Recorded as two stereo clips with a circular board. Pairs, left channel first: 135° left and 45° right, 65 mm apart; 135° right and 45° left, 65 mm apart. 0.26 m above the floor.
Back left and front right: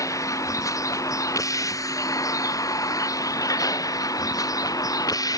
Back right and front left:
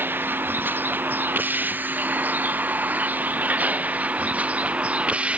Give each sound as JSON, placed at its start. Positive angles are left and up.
{"t": 0.0, "sound": "a vehicle", "azimuth_deg": 105}